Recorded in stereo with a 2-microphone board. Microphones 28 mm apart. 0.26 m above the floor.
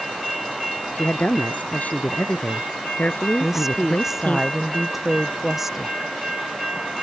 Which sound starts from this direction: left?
A woman speaking, at 0.9 s.